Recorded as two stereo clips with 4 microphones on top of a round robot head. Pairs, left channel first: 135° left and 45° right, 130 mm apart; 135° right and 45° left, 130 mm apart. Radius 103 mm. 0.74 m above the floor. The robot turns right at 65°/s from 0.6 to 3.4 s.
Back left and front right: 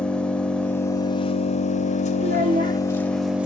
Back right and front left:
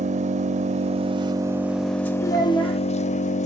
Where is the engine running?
55° left, 0.7 m; by 3.5 s 125° right, 0.7 m.